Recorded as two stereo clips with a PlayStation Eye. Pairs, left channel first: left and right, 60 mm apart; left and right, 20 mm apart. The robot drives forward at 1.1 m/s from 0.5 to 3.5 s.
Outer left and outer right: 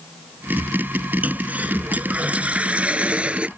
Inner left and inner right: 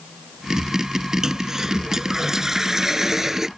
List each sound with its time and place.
1.2 s a toilet flushing: 30° right (ahead or behind); by 3.5 s 20° right (ahead or behind)